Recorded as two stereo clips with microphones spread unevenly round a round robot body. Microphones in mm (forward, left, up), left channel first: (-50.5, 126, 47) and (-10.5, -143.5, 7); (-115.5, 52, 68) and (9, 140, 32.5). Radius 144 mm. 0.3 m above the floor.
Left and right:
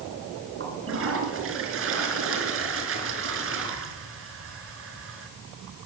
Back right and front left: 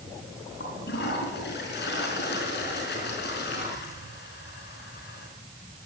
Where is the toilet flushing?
120° right, 5.5 m.